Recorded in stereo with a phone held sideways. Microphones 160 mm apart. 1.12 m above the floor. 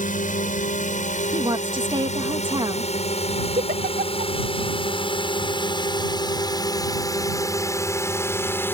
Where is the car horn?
I don't hear a car horn.